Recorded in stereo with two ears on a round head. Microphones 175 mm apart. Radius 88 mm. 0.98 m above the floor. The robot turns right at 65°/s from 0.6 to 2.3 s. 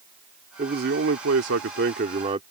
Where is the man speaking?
140° right; by 2.4 s 30° right.